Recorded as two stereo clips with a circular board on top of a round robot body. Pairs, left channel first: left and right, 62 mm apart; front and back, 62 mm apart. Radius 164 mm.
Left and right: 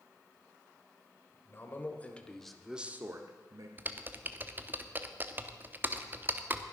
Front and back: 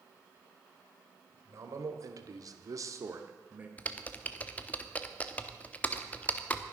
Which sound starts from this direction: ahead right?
Typing on a keyboard, at 3.8 s.